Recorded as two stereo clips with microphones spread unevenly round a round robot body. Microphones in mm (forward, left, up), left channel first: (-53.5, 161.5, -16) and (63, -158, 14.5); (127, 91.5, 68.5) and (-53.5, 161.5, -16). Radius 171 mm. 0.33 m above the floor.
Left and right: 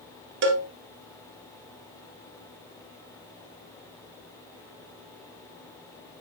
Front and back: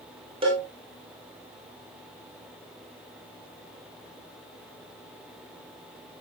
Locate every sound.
0.4 s a cowbell: 130° right, 1.7 m